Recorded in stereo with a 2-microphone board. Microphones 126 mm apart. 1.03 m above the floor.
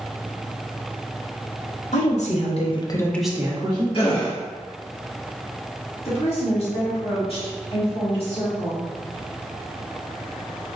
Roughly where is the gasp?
Left.